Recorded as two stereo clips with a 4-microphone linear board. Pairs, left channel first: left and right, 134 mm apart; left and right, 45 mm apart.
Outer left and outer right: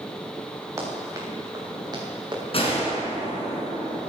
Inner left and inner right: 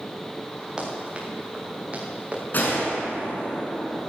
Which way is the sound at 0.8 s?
20° right (ahead or behind).